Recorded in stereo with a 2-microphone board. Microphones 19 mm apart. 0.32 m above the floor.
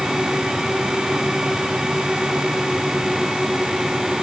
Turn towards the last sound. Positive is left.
No sound to turn to.